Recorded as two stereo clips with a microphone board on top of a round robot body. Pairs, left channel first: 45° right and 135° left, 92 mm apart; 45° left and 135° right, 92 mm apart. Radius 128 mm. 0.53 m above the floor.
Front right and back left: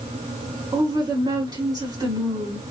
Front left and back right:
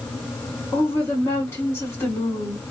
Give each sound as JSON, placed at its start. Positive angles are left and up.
{"t": 0.7, "sound": "a woman speaking", "azimuth_deg": 105, "distance_m": 1.6}